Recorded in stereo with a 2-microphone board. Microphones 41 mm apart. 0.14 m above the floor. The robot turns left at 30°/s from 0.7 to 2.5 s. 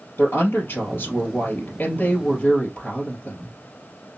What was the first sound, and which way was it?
A woman speaking, 90° left.